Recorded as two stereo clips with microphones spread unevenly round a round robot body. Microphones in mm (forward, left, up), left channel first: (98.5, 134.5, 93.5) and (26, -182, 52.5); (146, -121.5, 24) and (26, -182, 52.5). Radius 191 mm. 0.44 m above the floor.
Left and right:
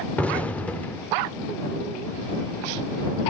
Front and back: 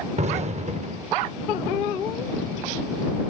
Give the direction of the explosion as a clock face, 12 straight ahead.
6 o'clock.